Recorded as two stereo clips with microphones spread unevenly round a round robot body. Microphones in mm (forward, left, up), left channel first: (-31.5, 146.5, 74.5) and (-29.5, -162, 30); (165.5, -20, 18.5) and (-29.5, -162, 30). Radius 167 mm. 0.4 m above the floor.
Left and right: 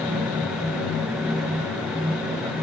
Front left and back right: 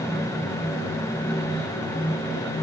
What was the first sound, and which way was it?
Only background noise.